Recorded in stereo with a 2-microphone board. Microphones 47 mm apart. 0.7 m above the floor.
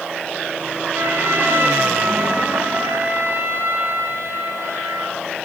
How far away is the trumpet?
About 6 m.